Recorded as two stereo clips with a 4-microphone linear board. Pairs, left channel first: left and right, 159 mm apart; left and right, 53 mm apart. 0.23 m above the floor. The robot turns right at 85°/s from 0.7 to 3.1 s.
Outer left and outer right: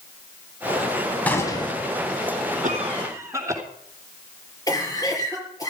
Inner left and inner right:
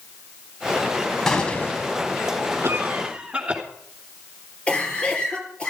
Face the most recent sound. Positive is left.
turn(degrees=20)  # may be behind; listen again after turning